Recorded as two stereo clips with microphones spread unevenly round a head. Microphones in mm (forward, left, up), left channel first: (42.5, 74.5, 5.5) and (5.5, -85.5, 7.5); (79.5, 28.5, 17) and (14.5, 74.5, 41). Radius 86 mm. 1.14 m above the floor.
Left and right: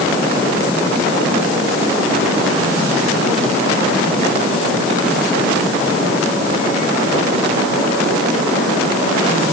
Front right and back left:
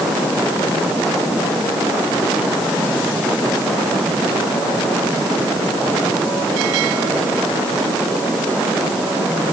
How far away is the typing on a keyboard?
I don't hear typing on a keyboard.